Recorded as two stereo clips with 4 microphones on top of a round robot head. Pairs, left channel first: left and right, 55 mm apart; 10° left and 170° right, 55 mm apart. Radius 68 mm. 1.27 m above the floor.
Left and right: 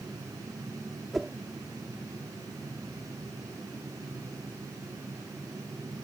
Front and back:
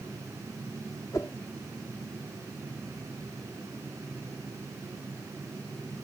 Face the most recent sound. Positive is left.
turn(degrees=0)